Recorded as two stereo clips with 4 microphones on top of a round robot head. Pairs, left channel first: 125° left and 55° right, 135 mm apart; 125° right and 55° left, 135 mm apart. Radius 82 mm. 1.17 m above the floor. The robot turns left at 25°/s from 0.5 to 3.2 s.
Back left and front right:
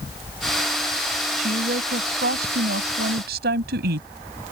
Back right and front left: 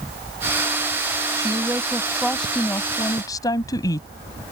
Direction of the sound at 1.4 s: 15° right.